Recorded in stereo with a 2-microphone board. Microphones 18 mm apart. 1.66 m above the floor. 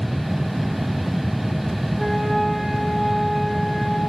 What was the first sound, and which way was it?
A flute, centre (ahead or behind).